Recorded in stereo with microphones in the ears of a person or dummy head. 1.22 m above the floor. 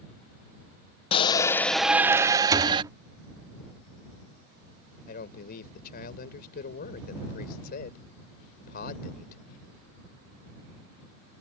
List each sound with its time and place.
1.1 s a shout: 30° left (ahead or behind); by 2.8 s 30° right (ahead or behind)
2.5 s a thud: 20° right (ahead or behind)
5.1 s a man speaking: 50° left (ahead or behind)